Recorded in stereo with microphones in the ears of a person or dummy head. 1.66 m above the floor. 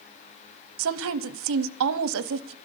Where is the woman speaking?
75° right (ahead or behind), 0.8 m.